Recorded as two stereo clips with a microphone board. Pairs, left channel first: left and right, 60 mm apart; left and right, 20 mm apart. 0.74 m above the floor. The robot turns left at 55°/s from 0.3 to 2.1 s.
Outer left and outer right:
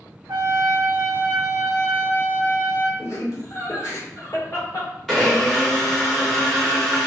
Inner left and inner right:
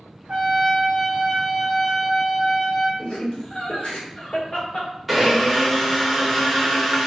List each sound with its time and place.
0.3 s a trumpet: 95° right, 1.1 m; by 2.9 s 165° left, 1.1 m
3.0 s laughter: 55° left (ahead or behind), 1.7 m
5.1 s a blender: 5° left (ahead or behind), 1.3 m